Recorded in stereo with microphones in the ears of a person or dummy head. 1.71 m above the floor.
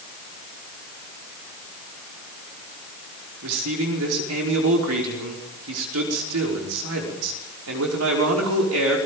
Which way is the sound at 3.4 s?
80° right.